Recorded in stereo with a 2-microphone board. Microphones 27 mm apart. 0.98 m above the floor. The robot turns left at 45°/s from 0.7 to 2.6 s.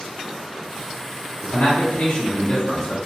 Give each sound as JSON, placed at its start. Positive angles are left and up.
{"t": 1.4, "sound": "a man speaking", "azimuth_deg": 90, "distance_m": 0.6}